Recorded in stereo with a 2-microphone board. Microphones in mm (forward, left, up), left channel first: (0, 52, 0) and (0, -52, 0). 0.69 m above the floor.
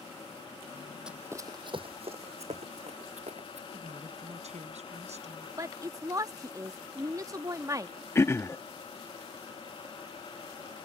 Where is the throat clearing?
25° left (ahead or behind).